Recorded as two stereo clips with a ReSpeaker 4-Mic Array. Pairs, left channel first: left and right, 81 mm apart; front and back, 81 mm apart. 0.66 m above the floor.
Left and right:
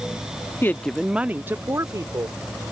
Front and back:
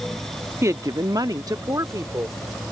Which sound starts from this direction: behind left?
A woman speaking, at 0.6 s.